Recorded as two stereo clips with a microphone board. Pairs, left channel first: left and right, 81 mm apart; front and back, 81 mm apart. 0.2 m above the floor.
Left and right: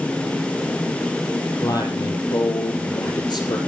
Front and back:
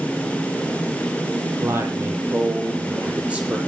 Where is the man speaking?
125° left, 6 m; by 3.6 s 105° left, 6.5 m.